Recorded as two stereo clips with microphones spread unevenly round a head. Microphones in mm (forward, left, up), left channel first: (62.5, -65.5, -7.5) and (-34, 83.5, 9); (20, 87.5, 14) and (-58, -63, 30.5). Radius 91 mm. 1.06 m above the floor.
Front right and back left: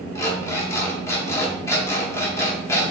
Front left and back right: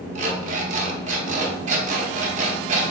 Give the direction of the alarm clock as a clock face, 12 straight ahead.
4 o'clock.